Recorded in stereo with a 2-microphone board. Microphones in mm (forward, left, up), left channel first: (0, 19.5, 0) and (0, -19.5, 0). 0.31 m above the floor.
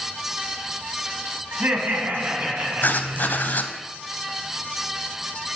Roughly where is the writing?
Left.